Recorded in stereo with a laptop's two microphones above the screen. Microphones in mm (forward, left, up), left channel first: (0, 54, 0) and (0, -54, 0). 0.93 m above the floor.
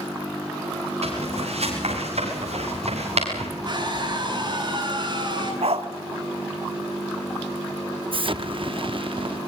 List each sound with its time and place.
1.0 s footsteps: 70° right (ahead or behind), 8.5 m; by 3.5 s 80° right, 8.5 m
3.6 s a scream: 40° right (ahead or behind), 8 m
5.6 s a dog barking: 65° right (ahead or behind), 1.3 m
8.1 s an explosion: 50° right (ahead or behind), 0.6 m